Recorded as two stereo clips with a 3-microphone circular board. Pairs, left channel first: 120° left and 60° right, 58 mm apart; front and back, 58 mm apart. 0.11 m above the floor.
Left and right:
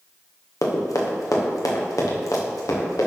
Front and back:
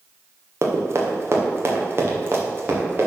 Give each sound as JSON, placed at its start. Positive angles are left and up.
{"t": 0.6, "sound": "running footsteps", "azimuth_deg": 145, "distance_m": 2.0}